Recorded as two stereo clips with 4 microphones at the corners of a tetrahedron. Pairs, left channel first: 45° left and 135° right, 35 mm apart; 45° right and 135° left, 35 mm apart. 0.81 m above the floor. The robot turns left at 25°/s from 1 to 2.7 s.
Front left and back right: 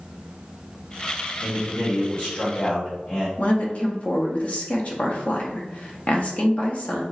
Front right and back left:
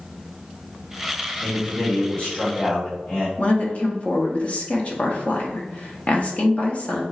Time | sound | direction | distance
1.4 | a man speaking | 35° left | 1.8 m
3.4 | a woman speaking | 5° left | 1.0 m